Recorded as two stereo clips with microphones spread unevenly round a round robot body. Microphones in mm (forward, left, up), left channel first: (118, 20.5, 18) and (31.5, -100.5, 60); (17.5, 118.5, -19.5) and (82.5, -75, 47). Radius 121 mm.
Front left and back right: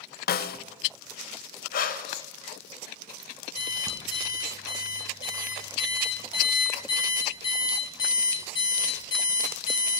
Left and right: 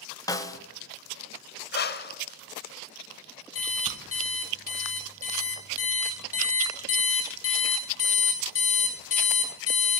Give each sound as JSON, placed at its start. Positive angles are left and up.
{"t": 0.3, "sound": "a snare drum", "azimuth_deg": 35, "distance_m": 0.5}
{"t": 1.7, "sound": "breathing", "azimuth_deg": 75, "distance_m": 0.6}
{"t": 3.5, "sound": "an alarm clock", "azimuth_deg": 125, "distance_m": 1.4}